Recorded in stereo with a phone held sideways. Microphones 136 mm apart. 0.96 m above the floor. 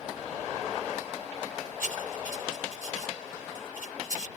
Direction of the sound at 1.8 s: 80° left.